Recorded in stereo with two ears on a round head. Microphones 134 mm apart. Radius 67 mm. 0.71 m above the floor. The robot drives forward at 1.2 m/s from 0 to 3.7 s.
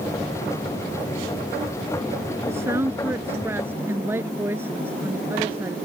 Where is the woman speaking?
20° right (ahead or behind); by 5.8 s 15° right (ahead or behind).